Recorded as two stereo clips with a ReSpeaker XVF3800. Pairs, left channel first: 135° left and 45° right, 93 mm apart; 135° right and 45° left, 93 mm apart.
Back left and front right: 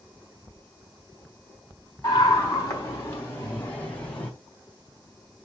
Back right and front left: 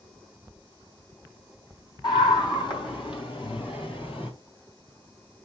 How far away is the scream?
About 4 m.